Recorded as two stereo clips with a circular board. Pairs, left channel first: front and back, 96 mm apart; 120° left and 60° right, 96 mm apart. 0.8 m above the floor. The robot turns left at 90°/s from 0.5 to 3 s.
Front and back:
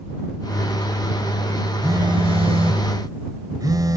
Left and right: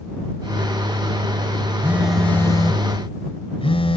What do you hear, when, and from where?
1.8 s a phone buzzing: 125° right; by 4.0 s 130° left